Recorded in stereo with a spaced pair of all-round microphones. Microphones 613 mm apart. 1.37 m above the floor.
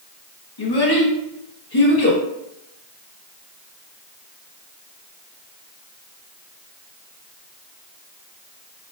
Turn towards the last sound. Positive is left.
turn(degrees=40)  # may be behind; listen again after turning